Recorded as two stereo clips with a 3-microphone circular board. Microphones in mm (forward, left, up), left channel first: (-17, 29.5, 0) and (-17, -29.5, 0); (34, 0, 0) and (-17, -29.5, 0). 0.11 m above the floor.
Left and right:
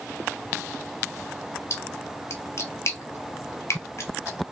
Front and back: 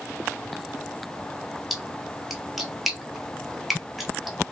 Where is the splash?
125° left, 0.8 m.